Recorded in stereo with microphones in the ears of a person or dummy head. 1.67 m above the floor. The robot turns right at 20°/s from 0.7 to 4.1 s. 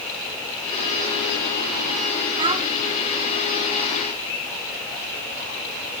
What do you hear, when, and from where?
2.4 s a child speaking: 30° right (ahead or behind), 1.0 m; by 2.6 s 25° right (ahead or behind), 1.0 m